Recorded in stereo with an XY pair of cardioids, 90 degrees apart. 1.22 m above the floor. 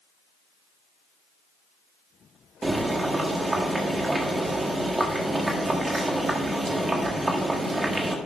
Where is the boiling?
25° right, 1.7 m.